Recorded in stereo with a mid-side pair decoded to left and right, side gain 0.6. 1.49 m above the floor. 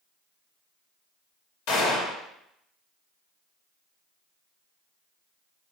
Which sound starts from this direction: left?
A gunshot, at 1.7 s.